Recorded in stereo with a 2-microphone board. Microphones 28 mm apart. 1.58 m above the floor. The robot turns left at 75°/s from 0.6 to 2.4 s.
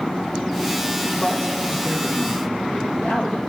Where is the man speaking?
145° left, 2.0 m; by 3.5 s 55° left, 2.0 m.